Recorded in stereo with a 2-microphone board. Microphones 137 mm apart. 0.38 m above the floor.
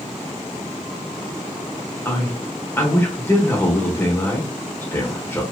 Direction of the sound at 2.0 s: 15° left (ahead or behind).